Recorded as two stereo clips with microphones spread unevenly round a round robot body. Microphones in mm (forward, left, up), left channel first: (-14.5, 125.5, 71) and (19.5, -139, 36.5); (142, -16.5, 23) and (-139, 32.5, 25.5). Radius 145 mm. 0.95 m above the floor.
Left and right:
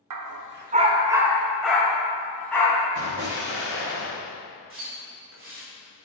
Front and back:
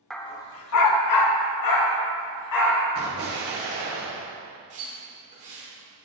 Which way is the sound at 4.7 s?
125° right.